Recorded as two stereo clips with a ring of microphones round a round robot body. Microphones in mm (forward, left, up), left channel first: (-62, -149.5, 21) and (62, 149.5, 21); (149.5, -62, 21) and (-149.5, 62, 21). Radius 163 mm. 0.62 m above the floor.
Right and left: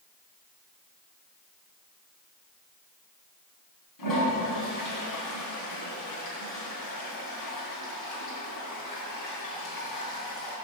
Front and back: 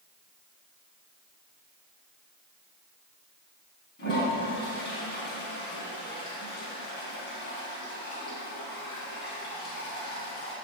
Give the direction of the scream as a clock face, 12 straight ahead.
No scream in this recording.